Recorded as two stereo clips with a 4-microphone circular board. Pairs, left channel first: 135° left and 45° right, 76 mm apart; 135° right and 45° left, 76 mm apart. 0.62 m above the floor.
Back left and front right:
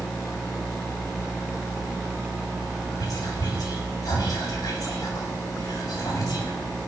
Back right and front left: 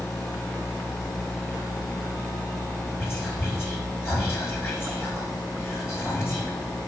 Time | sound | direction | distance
3.0 | whispering | 170° left | 3.5 m